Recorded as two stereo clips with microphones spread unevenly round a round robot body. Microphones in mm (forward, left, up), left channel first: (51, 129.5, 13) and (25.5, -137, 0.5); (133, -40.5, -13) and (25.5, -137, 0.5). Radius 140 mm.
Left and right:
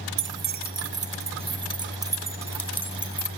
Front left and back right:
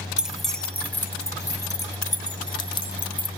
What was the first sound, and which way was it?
Keys jangling, 50° right.